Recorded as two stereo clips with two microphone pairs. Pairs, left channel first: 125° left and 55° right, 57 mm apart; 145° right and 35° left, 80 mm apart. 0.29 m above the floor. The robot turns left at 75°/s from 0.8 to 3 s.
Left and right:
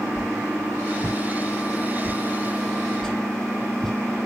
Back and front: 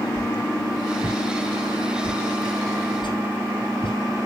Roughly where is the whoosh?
Ahead.